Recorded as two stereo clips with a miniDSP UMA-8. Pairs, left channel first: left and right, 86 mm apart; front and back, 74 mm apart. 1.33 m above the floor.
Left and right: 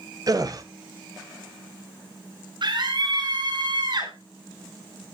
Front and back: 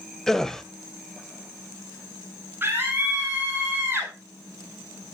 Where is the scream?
115° right, 10 m.